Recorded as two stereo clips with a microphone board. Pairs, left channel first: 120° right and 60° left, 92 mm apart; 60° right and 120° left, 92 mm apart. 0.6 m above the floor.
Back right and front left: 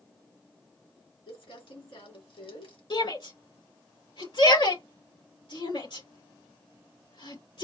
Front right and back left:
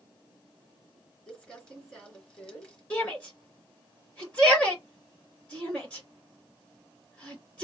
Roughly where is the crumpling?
Behind right.